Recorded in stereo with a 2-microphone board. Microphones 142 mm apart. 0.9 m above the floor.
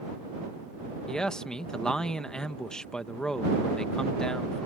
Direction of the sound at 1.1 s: 5° left (ahead or behind).